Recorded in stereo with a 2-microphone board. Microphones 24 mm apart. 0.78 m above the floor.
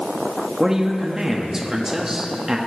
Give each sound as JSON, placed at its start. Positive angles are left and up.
{"t": 0.6, "sound": "a woman speaking", "side_deg": -20, "distance_m": 1.1}